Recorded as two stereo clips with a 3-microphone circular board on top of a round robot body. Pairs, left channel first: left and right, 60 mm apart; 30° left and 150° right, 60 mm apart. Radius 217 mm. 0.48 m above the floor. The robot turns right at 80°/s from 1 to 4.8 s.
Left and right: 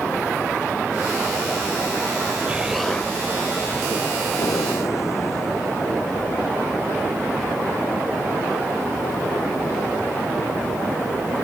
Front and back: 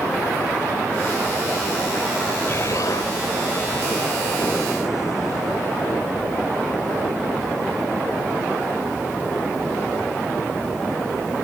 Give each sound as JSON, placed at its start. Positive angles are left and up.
{"t": 2.5, "sound": "an explosion", "azimuth_deg": -25}
{"t": 4.3, "sound": "breathing", "azimuth_deg": 90}